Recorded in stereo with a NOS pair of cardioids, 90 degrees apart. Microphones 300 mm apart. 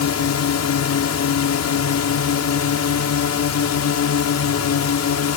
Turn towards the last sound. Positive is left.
turn(degrees=60)